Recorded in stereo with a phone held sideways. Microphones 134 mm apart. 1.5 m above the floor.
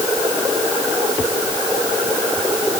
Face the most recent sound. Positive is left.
No sound to turn to.